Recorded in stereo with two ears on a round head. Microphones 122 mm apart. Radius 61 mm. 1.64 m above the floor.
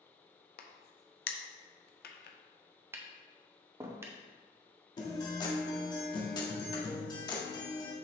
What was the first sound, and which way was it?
A crack, 80° left.